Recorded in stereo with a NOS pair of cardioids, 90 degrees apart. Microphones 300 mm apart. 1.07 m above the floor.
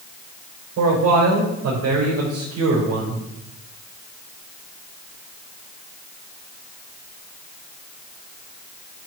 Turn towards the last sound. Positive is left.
turn(degrees=-55)